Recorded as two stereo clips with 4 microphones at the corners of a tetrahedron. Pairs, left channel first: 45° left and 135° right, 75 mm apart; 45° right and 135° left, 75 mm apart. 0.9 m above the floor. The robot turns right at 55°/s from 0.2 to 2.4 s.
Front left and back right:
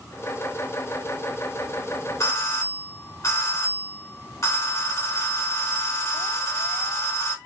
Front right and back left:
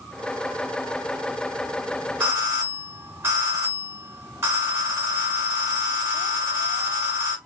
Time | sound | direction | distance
2.2 | a doorbell | 70° left | 2 m